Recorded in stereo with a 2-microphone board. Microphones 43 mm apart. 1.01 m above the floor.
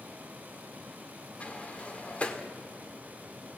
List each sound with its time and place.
1.4 s a sliding door: 30° left (ahead or behind), 1.8 m